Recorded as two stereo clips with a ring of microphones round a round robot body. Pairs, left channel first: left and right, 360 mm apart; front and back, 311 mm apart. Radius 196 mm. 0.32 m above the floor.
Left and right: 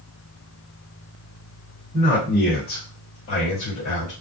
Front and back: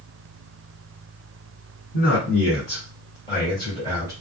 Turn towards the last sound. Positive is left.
turn(degrees=70)